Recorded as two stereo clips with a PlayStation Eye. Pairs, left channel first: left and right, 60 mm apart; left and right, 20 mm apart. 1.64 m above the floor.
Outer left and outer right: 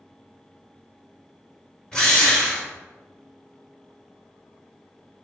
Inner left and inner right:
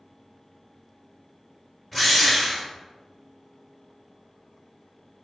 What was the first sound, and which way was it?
A drill, 10° left (ahead or behind).